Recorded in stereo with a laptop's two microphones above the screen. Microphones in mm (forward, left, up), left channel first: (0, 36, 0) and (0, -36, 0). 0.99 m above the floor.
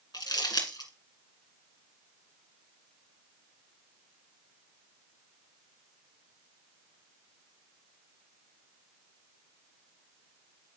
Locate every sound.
0.1 s crumpling: 75° left (ahead or behind), 2.0 m